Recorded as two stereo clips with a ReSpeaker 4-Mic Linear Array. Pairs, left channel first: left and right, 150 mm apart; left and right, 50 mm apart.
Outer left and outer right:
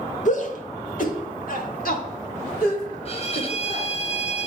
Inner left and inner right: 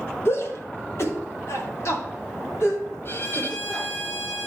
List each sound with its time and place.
0.2 s a shout: 55° left (ahead or behind), 1.5 m; by 3.9 s 65° left (ahead or behind), 3.5 m
3.0 s a violin: 40° left (ahead or behind), 0.9 m